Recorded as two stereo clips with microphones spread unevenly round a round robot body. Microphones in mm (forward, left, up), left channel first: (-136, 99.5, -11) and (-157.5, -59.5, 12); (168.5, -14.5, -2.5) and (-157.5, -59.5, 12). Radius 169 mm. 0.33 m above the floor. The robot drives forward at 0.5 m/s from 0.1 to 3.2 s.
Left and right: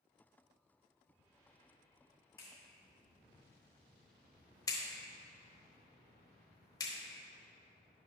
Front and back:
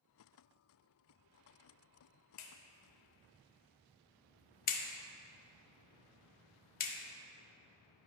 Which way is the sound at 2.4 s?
25° left.